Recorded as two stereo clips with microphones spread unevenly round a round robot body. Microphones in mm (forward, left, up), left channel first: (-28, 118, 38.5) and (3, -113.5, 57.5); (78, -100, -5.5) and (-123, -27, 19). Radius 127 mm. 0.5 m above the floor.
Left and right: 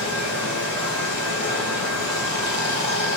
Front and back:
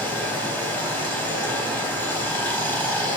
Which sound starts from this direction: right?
Running water, at 0.0 s.